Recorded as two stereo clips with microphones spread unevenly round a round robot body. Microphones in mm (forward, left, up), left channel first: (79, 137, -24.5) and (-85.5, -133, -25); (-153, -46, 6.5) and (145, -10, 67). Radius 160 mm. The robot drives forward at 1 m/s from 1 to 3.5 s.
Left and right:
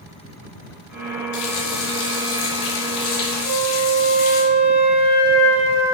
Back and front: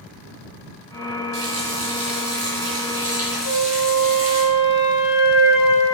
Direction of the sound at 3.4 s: 150° left.